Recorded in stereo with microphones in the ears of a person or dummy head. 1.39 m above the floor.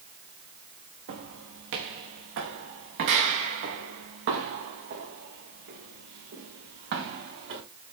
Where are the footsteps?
70° right (ahead or behind), 4.5 m; by 7.6 s 60° right (ahead or behind), 7.5 m.